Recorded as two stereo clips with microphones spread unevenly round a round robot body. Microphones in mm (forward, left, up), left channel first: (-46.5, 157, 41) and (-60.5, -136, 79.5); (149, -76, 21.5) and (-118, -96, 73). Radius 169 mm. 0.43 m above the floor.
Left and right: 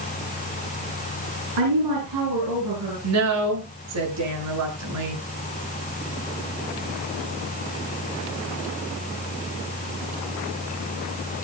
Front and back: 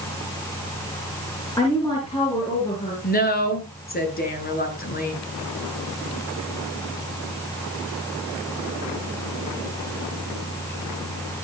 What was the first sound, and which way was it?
A woman speaking, 70° right.